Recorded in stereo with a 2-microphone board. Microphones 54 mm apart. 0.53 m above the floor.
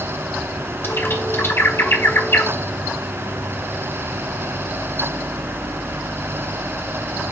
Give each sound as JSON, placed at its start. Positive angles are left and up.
{"t": 0.8, "sound": "a bird", "side_deg": 50, "distance_m": 1.4}